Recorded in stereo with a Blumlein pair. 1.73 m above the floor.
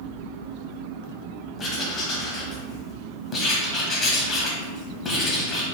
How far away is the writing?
About 1.1 m.